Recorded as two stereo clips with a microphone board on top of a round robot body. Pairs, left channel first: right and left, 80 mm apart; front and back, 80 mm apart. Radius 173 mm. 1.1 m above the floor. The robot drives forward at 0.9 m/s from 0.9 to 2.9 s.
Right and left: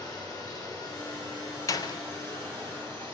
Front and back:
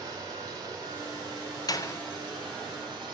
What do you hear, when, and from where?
0.0 s running water: 135° right, 4 m; by 3.1 s 145° right, 5.5 m
1.7 s a door slam: 40° right, 0.7 m; by 2.0 s 65° right, 0.5 m